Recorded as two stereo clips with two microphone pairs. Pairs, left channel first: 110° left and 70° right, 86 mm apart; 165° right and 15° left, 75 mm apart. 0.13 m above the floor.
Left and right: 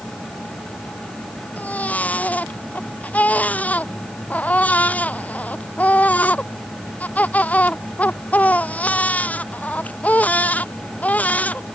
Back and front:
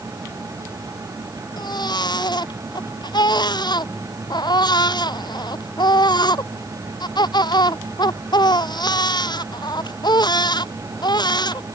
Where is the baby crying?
Straight behind.